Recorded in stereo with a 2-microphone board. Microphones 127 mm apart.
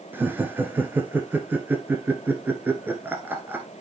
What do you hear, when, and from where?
0.1 s laughter: 15° right (ahead or behind), 1.1 m